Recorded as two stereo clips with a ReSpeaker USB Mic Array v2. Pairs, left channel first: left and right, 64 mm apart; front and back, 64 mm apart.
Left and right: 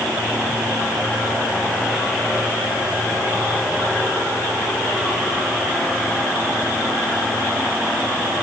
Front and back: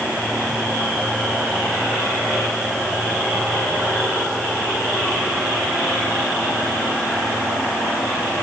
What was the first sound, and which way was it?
Only background noise.